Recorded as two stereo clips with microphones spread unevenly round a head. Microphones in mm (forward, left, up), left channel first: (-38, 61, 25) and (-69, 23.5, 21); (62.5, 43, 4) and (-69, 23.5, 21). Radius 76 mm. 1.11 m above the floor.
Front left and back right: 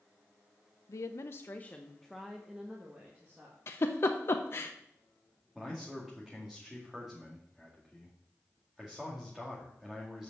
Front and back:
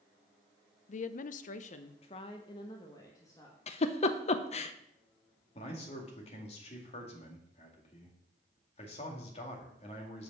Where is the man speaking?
45° right, 1.8 m.